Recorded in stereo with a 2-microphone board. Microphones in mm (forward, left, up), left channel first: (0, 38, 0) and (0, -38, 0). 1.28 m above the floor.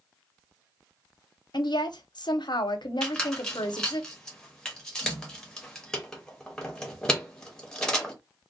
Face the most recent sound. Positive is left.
turn(degrees=10)  # may be behind; listen again after turning